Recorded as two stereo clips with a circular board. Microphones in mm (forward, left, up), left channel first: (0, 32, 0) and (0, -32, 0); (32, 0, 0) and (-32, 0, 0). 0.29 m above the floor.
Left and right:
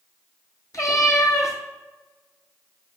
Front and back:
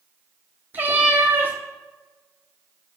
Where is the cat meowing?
120° left, 1.3 m.